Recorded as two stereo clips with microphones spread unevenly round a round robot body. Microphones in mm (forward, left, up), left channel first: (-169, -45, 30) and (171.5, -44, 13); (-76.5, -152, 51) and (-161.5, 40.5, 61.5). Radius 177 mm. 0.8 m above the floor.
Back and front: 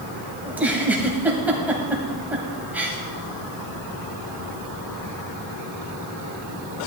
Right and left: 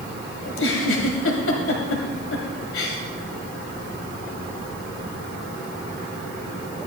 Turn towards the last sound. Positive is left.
turn(degrees=-85)